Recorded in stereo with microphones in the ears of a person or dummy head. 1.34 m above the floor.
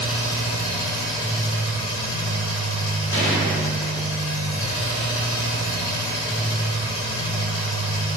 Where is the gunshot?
20° left (ahead or behind), 1.3 m.